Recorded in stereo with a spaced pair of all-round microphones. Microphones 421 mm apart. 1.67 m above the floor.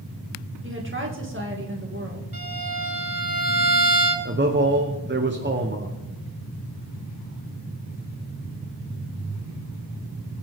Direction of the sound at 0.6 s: 30° right (ahead or behind).